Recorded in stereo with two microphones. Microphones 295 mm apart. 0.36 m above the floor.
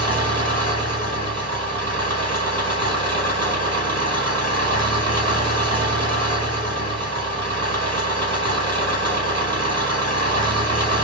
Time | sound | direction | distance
0.0 | an engine running | 55° right (ahead or behind) | 1.2 m